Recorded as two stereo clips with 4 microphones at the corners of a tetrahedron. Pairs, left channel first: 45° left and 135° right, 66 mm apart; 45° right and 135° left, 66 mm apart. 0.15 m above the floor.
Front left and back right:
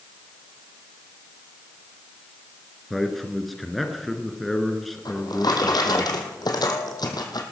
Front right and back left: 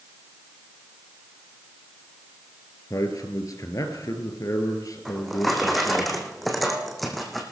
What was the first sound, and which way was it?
A man speaking, 45° right.